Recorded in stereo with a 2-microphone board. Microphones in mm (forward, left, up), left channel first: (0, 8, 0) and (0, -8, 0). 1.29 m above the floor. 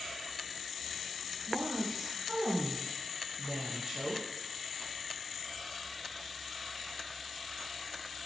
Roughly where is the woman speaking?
Right.